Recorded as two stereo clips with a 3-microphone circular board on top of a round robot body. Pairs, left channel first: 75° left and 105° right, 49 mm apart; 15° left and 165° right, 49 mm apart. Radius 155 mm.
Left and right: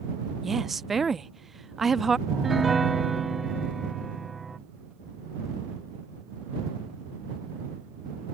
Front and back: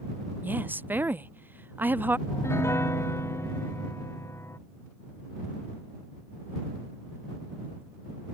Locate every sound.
0.4 s a woman speaking: 170° left
2.3 s a piano: 15° right